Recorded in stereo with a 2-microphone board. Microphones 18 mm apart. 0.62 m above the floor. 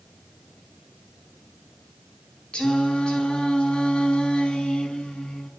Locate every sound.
2.5 s singing: 75° left (ahead or behind), 4.5 m